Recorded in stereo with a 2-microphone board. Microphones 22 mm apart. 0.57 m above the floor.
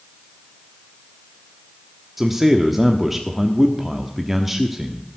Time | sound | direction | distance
2.2 | a man speaking | 10° right (ahead or behind) | 1.1 m